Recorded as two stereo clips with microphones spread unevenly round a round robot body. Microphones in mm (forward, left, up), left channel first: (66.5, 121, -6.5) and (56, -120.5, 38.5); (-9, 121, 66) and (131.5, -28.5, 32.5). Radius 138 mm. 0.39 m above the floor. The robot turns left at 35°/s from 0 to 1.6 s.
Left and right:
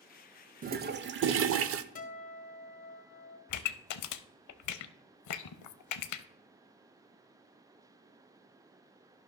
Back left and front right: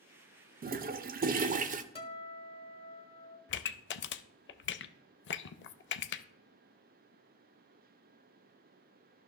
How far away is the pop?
About 0.5 m.